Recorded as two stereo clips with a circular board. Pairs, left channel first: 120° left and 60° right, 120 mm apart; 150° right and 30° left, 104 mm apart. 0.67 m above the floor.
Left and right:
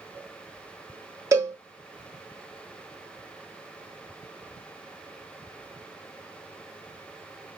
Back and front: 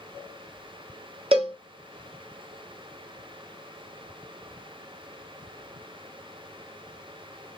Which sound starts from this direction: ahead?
A cowbell, at 1.3 s.